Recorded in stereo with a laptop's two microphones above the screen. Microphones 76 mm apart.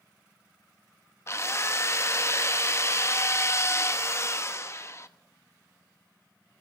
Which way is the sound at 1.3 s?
35° left (ahead or behind).